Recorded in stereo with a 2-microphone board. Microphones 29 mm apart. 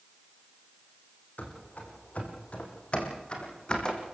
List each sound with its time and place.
1.4 s running footsteps: 65° left (ahead or behind), 4.5 m; by 4.0 s 30° left (ahead or behind), 4.5 m